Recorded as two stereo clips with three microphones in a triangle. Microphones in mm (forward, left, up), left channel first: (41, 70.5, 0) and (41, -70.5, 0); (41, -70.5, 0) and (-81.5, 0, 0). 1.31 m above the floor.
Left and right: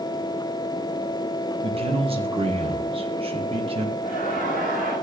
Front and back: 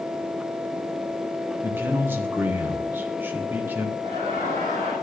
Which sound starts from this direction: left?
Laughter, at 4.0 s.